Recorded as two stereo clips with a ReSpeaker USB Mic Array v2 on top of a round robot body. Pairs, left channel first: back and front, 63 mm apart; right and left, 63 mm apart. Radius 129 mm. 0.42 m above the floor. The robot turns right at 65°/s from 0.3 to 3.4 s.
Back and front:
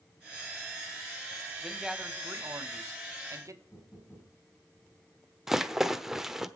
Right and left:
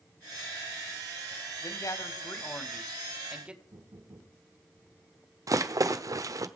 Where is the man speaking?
95° right, 2 m; by 3.6 s 20° left, 2 m.